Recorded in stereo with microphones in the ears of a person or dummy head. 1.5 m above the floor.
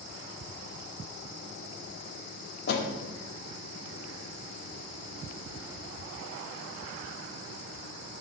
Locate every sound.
2.7 s a door slam: 65° left (ahead or behind), 2.5 m